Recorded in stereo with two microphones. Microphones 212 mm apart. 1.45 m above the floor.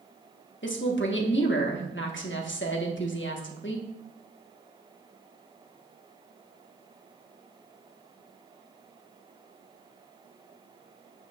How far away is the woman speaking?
About 1.2 m.